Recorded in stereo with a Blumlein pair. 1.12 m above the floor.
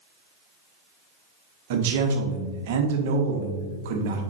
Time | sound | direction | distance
1.7 | a man speaking | 55° right | 1.1 m